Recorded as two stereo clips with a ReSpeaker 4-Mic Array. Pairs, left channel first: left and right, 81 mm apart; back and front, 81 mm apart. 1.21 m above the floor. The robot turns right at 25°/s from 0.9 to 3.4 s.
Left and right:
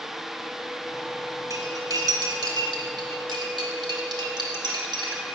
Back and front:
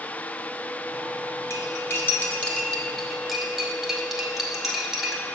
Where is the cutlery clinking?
135° right, 1.3 m; by 5.2 s 85° right, 1.3 m.